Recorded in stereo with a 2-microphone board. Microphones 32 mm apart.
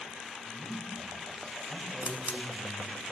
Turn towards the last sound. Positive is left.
turn(degrees=-60)  # may be behind; listen again after turning